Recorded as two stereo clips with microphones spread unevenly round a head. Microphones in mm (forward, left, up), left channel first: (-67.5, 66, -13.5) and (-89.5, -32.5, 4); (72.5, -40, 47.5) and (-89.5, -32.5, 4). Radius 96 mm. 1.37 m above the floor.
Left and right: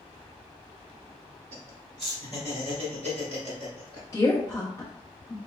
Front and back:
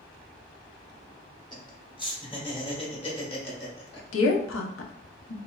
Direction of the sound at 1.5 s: 65° right.